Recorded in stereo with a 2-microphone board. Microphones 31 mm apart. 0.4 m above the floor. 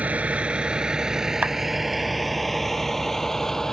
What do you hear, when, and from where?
0.0 s a vehicle: 50° right (ahead or behind); by 3.7 s 20° left (ahead or behind)
1.4 s a clap: 65° right (ahead or behind)